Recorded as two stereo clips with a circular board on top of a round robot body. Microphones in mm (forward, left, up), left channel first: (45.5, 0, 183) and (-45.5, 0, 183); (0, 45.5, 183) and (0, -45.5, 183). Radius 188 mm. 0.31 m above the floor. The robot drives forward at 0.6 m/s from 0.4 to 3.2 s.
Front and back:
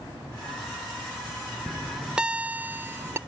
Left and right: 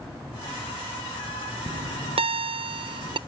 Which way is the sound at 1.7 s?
90° right.